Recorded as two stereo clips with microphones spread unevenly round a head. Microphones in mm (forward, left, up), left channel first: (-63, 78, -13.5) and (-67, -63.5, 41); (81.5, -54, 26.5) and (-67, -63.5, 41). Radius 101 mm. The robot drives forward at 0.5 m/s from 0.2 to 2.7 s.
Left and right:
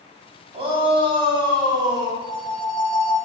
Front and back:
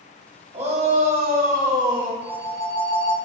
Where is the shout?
130° right, 1.1 m; by 2.1 s 150° right, 1.7 m.